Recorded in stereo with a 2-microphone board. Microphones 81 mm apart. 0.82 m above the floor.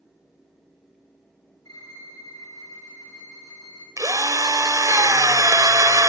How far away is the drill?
About 1.4 m.